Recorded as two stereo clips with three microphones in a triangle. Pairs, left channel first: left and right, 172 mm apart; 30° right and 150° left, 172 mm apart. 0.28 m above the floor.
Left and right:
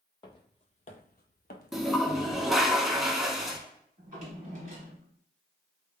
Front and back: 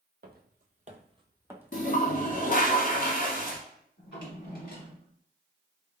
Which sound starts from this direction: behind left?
Footsteps, at 0.2 s.